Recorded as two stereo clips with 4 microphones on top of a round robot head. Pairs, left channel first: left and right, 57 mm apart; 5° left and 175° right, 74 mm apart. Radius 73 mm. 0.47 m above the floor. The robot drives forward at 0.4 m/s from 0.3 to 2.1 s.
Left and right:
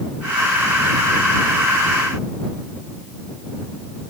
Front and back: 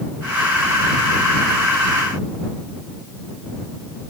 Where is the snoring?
I don't hear snoring.